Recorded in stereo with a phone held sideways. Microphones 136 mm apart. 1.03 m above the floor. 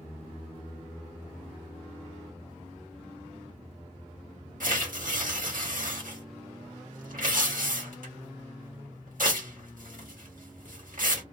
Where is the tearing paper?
85° right, 1.2 m.